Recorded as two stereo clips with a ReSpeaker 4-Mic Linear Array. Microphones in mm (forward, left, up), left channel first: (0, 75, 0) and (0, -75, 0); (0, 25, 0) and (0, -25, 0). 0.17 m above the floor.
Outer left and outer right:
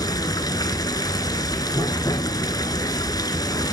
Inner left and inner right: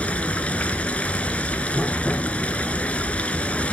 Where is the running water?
25° left (ahead or behind), 0.9 m.